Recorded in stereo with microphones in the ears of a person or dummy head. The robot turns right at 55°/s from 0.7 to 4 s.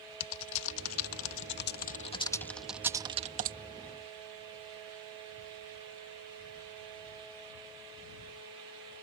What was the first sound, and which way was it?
Typing on a keyboard, 70° left (ahead or behind).